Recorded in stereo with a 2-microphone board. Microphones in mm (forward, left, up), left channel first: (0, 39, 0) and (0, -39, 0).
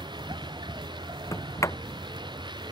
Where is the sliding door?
40° left (ahead or behind).